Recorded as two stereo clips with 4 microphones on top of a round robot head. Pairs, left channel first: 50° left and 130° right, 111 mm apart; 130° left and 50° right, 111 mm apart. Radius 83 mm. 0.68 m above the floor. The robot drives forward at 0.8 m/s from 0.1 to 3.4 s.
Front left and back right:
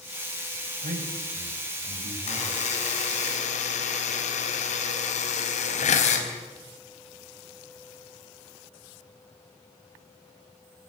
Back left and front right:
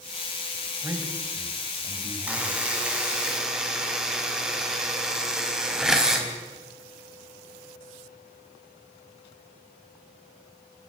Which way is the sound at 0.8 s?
120° right.